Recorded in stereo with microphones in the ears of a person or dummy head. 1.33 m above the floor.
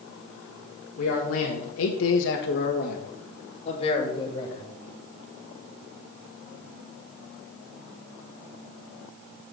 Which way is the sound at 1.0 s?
70° left (ahead or behind).